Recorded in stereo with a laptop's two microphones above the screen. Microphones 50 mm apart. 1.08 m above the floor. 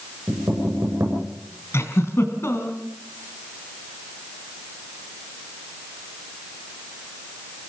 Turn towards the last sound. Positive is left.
turn(degrees=55)  # may be behind; listen again after turning